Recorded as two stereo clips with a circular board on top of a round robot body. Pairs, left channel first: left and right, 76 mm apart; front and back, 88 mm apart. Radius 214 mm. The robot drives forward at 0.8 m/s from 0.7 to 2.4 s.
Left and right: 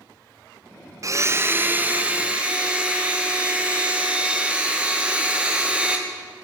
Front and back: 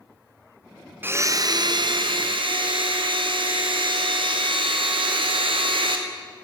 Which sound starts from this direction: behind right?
A blender, at 1.0 s.